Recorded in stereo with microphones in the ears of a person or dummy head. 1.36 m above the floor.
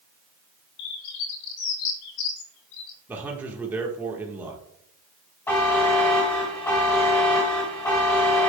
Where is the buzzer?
10° left (ahead or behind), 1.3 m.